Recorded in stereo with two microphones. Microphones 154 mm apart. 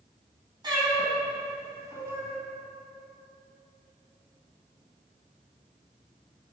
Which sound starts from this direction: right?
A cat meowing, at 0.6 s.